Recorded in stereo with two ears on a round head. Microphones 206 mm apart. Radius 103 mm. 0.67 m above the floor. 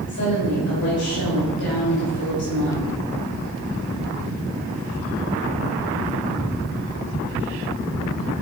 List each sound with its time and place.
0.1 s a woman speaking: 55° left (ahead or behind), 5 m